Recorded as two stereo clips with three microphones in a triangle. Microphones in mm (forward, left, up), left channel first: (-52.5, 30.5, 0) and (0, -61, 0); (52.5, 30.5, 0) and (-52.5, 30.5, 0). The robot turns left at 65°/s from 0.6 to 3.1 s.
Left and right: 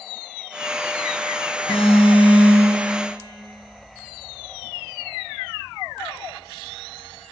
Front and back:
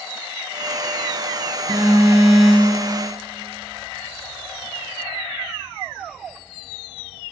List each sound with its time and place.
1.7 s an alarm: 140° left, 4 m; by 2.8 s 65° left, 4 m